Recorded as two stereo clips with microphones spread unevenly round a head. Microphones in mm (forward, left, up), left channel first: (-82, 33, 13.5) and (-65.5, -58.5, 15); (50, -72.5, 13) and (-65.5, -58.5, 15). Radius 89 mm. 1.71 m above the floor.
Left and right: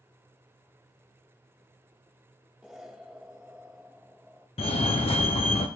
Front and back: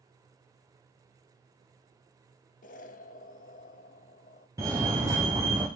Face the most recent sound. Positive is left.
turn(degrees=100)